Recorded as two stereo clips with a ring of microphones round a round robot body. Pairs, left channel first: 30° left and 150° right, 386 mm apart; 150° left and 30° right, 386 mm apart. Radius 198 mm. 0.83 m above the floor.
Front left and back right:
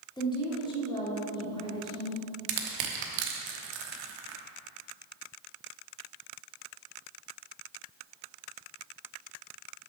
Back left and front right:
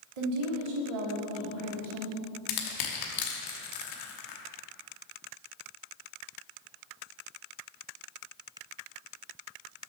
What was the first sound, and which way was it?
A woman speaking, 50° right.